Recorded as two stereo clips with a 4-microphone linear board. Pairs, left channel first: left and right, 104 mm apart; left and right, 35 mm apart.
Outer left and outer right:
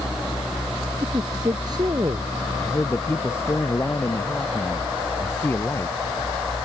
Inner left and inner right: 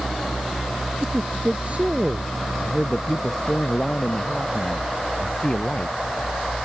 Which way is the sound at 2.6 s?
25° left (ahead or behind).